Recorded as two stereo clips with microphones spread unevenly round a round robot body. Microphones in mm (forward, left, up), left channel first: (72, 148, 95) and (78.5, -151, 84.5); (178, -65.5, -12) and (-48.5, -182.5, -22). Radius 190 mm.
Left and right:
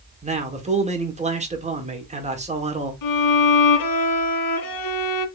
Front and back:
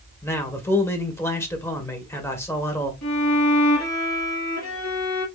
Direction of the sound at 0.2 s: 50° right.